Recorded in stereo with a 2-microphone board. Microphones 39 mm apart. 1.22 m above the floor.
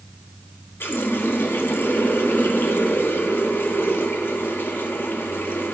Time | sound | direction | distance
0.8 | a running tap | 80° left | 1.4 m